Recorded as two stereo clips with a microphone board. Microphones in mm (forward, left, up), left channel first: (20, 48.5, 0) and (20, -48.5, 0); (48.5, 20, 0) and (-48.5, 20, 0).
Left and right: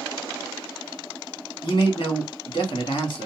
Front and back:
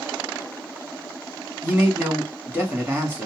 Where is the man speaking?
115° left, 1.6 m.